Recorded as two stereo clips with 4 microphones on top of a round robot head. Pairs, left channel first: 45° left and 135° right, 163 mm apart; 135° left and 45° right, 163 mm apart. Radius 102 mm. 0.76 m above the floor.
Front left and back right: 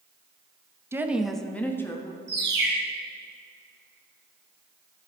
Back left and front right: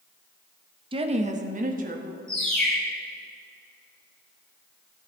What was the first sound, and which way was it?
A woman speaking, 70° right.